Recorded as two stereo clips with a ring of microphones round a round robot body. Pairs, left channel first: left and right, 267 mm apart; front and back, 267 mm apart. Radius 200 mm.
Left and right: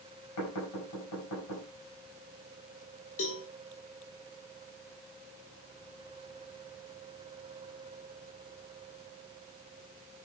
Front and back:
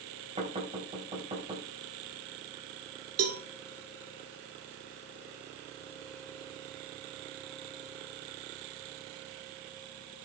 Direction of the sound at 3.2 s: 150° left.